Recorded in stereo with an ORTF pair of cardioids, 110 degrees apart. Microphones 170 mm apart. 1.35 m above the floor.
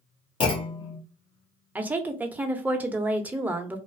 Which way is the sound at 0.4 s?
35° left.